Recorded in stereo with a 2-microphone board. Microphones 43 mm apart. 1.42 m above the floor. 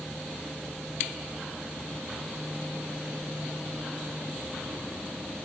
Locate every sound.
Only background noise.